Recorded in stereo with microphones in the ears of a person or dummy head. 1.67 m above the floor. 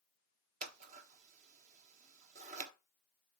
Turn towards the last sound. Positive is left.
turn(degrees=-45)  # may be behind; listen again after turning